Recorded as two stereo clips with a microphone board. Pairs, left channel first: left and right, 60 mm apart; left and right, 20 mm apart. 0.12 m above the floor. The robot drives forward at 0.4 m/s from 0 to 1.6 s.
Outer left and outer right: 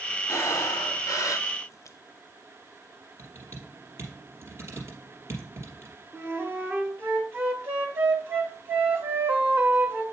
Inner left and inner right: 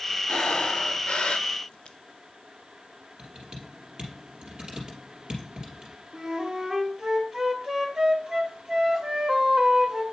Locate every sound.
0.3 s breathing: 60° left (ahead or behind), 0.6 m; by 2.0 s 55° left (ahead or behind), 0.6 m
3.2 s typing on a keyboard: 45° right (ahead or behind), 2.5 m
6.1 s a flute: 30° right (ahead or behind), 1.6 m